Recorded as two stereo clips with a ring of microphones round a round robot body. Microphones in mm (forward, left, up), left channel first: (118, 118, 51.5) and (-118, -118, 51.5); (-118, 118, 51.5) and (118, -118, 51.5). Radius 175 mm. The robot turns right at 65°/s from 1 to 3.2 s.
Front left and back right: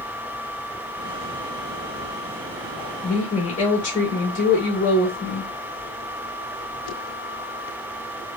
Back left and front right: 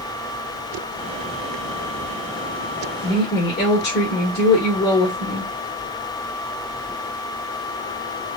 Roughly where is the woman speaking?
Left.